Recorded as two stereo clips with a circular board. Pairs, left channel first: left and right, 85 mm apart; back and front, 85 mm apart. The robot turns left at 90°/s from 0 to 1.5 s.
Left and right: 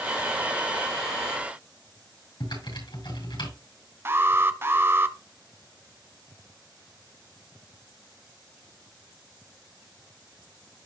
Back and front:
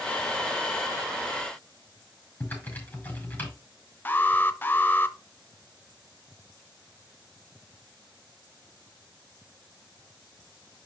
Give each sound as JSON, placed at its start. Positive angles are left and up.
{"t": 2.4, "sound": "typing on a keyboard", "azimuth_deg": 110, "distance_m": 6.0}
{"t": 4.0, "sound": "an alarm", "azimuth_deg": -130, "distance_m": 0.7}